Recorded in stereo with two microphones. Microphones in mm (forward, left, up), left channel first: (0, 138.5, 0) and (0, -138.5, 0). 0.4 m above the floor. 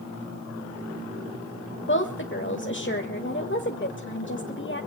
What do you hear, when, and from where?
1.9 s a woman speaking: 40° left (ahead or behind), 1.2 m